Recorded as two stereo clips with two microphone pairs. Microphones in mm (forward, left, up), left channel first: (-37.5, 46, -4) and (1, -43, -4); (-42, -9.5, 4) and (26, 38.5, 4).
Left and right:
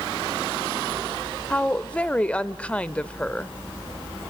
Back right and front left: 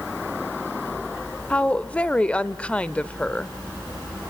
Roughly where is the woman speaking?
Behind.